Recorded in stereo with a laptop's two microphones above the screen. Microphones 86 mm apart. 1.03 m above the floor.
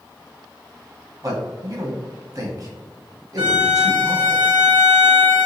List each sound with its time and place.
1.2 s a man speaking: 45° right (ahead or behind), 1.0 m
3.4 s a violin: 70° right (ahead or behind), 1.7 m